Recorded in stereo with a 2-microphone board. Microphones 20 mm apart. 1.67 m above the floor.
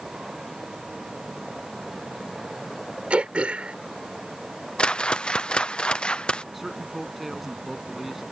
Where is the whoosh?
60° left (ahead or behind).